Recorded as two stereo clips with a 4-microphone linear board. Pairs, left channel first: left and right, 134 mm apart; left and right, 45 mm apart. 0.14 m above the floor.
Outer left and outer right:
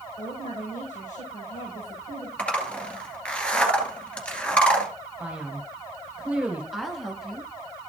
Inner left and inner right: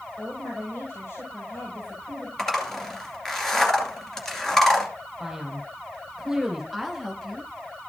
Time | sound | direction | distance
0.2 | a woman speaking | 65° left (ahead or behind) | 5.5 m
2.4 | a zipper | 10° left (ahead or behind) | 2 m
5.2 | a man speaking | 10° right (ahead or behind) | 2.5 m
6.7 | a woman speaking | centre (ahead or behind) | 1.4 m